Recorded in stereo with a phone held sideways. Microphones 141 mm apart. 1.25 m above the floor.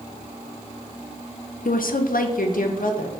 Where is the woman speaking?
80° left, 0.6 m; by 3.1 s 75° left (ahead or behind), 1.3 m.